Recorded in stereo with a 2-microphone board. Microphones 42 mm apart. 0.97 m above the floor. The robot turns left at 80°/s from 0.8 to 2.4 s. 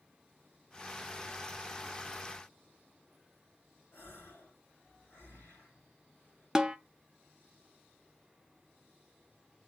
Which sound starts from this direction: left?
A gasp, at 3.9 s.